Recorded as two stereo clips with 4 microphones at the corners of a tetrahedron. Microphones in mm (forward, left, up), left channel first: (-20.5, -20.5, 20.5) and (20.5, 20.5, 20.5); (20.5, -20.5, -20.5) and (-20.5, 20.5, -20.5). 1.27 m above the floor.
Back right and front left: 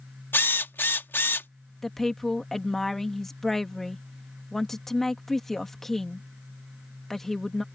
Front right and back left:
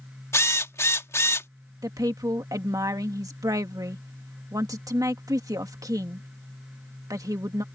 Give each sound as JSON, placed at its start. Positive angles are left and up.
{"t": 0.3, "sound": "a drill", "azimuth_deg": -85}
{"t": 1.8, "sound": "a woman speaking", "azimuth_deg": 140}